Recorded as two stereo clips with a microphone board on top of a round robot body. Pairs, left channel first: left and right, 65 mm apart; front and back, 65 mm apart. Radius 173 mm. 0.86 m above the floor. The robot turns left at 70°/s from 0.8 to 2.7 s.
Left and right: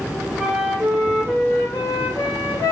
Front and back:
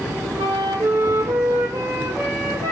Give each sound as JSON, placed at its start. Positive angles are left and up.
{"t": 0.4, "sound": "a flute", "azimuth_deg": -160, "distance_m": 0.5}